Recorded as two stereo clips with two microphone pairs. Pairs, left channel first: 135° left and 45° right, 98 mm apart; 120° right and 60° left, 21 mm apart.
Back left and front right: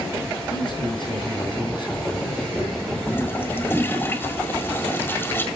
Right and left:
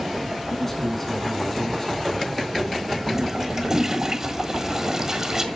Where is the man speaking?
165° left, 3.5 m.